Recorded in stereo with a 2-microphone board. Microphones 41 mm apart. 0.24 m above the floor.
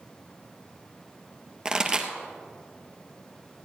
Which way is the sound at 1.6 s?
20° right (ahead or behind).